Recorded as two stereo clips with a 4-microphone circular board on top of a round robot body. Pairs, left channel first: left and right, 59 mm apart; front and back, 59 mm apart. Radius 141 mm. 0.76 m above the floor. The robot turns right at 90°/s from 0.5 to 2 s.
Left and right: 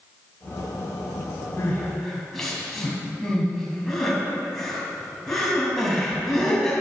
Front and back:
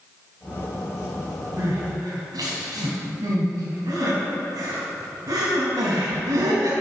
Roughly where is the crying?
Behind left.